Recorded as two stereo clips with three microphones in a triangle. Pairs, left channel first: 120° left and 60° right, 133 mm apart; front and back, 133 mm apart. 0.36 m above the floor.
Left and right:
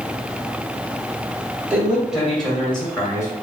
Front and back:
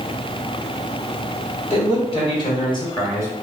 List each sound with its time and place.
1.7 s a man speaking: 15° left, 1.8 m; by 3.3 s 55° left, 1.6 m